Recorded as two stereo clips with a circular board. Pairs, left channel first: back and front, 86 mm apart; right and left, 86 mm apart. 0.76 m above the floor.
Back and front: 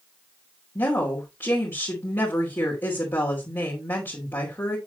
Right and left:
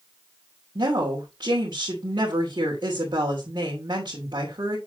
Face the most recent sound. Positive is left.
turn(degrees=120)